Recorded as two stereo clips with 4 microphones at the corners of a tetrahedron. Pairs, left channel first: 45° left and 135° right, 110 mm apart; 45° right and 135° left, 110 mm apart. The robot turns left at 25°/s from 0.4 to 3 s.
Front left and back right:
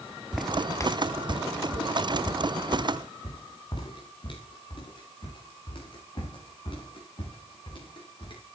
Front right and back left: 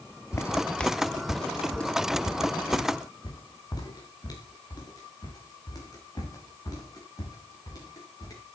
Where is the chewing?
No chewing in this recording.